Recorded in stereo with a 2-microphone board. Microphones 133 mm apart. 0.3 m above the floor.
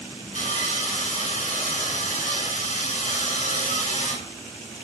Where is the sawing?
65° left (ahead or behind), 2.5 m.